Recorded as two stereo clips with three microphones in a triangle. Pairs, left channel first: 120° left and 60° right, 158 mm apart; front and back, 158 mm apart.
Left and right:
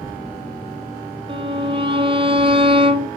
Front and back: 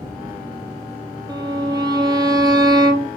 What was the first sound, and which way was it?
A violin, 115° right.